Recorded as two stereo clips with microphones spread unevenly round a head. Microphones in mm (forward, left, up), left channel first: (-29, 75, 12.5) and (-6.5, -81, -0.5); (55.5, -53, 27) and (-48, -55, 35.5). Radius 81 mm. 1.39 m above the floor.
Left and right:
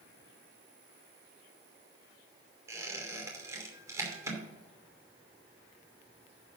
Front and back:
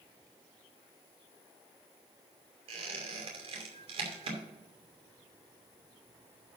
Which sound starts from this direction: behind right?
A squeak, at 2.7 s.